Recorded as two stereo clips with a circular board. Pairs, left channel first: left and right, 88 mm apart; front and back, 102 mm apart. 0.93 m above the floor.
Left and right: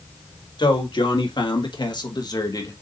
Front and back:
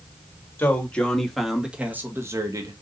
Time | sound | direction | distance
0.6 | a man speaking | 70° left | 1.8 m